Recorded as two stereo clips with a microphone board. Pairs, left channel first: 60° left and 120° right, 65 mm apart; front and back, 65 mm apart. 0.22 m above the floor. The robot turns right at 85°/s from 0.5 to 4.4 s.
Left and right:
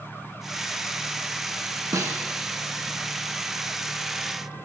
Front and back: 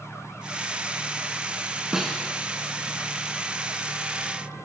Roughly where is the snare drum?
Right.